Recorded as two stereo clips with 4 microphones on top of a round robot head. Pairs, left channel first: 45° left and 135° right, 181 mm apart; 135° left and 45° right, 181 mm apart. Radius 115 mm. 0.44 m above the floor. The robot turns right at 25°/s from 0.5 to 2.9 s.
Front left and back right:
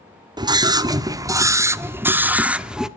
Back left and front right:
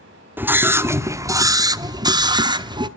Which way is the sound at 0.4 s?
110° right.